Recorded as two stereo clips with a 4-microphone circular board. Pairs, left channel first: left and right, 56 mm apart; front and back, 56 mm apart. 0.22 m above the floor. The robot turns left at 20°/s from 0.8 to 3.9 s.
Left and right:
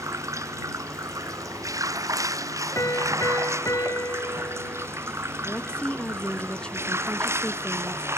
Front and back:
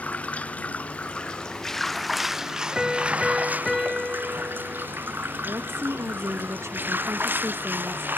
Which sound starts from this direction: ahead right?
Running water, at 0.0 s.